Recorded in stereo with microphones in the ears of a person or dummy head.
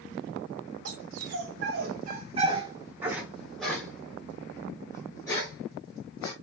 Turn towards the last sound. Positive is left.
turn(degrees=15)  # may be behind; listen again after turning